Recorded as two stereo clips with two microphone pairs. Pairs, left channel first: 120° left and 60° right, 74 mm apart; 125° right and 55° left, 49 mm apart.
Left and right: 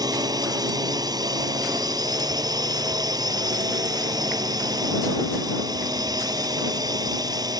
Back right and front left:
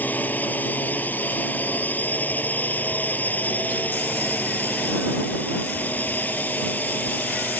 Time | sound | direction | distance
0.0 | a drone | 75° right | ?